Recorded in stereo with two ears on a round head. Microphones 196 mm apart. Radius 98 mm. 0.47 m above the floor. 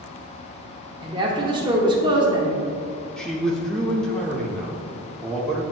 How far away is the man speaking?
About 0.8 m.